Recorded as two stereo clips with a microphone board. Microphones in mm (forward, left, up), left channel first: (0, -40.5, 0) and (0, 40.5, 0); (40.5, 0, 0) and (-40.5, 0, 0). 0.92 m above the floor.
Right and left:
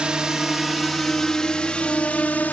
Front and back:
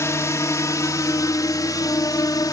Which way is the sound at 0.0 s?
15° left.